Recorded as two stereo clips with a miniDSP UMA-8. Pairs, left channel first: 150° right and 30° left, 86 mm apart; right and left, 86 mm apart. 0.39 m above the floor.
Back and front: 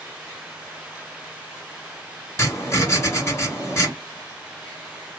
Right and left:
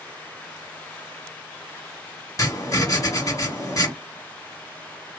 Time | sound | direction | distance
2.4 | writing | 110° right | 1.9 m